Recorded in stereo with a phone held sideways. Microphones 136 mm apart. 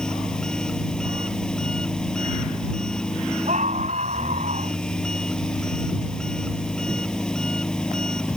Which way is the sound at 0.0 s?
5° left (ahead or behind).